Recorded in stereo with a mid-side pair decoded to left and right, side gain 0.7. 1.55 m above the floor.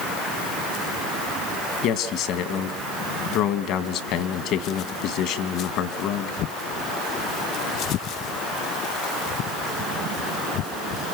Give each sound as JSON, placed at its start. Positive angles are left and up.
{"t": 1.8, "sound": "a man speaking", "azimuth_deg": 60, "distance_m": 2.0}